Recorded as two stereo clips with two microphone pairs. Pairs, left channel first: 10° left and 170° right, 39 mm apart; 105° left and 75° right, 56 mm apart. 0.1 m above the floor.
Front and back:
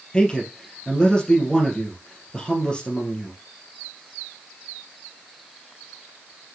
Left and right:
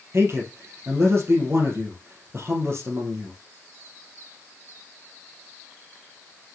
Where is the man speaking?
55° right, 3 m.